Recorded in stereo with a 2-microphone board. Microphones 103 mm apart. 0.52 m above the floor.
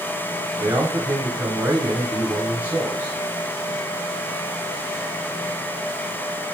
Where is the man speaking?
30° right (ahead or behind), 3 m.